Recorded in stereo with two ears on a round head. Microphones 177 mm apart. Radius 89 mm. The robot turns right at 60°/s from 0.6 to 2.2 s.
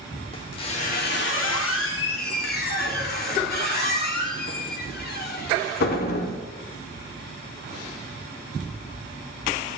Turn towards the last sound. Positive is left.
turn(degrees=55)  # may be behind; listen again after turning